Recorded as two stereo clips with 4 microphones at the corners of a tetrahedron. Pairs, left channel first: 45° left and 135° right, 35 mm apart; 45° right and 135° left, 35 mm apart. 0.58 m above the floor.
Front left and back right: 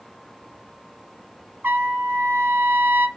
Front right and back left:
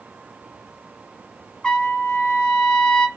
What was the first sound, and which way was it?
A trumpet, 115° right.